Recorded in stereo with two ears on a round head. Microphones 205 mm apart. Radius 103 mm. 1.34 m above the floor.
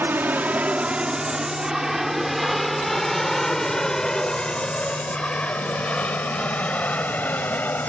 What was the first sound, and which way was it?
An aircraft, 10° right (ahead or behind).